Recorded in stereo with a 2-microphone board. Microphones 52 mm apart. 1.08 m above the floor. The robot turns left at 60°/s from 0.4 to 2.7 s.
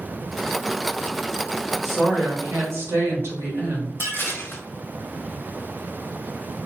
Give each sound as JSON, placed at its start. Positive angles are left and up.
{"t": 1.8, "sound": "a woman speaking", "azimuth_deg": -5, "distance_m": 1.3}
{"t": 4.0, "sound": "dishes clattering", "side_deg": 50, "distance_m": 0.6}